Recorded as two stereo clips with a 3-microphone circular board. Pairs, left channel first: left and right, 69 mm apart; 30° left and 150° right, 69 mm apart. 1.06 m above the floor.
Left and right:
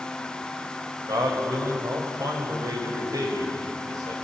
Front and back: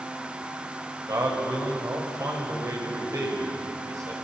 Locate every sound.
1.1 s a man speaking: 115° right, 4.5 m